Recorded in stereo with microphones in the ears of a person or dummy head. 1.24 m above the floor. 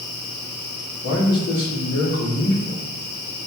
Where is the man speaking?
70° left (ahead or behind), 3 m.